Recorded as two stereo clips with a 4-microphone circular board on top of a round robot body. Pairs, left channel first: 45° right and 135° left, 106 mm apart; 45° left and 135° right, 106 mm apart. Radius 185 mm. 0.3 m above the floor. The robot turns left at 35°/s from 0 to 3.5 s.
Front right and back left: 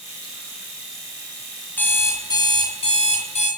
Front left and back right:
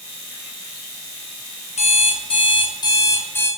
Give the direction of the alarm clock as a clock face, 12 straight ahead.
11 o'clock.